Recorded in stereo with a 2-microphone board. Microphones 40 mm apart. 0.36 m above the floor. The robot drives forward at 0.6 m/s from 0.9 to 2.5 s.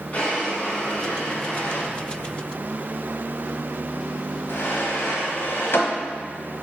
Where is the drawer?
35° left (ahead or behind), 1.5 m; by 5.9 s 65° left (ahead or behind), 0.9 m.